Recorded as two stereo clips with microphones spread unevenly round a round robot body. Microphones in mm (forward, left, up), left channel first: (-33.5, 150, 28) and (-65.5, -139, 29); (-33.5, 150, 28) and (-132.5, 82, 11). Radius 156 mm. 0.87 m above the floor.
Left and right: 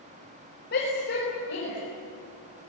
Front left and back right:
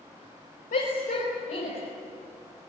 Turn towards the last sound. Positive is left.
turn(degrees=30)